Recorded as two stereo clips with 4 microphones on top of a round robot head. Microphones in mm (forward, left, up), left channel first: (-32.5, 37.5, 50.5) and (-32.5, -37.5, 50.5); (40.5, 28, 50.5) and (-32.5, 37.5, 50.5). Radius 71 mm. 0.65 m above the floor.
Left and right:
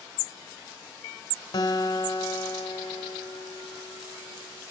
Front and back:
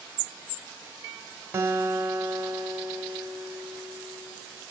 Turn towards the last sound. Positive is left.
turn(degrees=110)